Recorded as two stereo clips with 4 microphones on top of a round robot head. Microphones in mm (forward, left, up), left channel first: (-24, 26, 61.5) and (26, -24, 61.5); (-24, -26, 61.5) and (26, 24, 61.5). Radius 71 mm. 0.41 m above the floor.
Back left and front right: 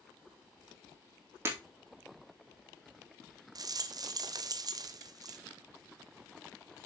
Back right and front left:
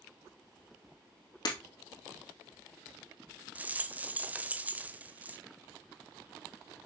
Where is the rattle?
20° right, 0.9 m.